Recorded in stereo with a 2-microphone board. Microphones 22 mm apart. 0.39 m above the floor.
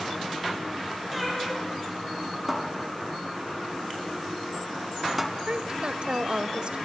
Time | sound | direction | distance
1.1 | a cat meowing | 5° right (ahead or behind) | 10 m
2.5 | a cupboard door | 5° right (ahead or behind) | 2.5 m
5.5 | a woman speaking | 45° right (ahead or behind) | 1.6 m